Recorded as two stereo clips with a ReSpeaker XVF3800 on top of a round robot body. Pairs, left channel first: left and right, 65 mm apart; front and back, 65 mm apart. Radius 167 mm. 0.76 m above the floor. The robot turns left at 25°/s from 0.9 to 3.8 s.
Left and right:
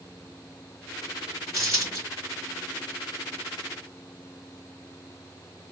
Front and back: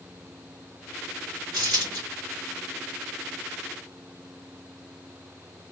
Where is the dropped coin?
170° left, 2 m; by 2.0 s 160° left, 2 m.